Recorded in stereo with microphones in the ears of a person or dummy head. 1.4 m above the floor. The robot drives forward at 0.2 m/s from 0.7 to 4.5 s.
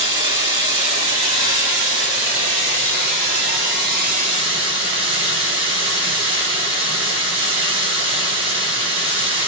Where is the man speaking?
No man speaking in this recording.